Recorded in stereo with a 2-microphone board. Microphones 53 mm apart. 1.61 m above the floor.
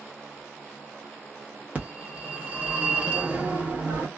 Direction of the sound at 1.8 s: 30° right (ahead or behind).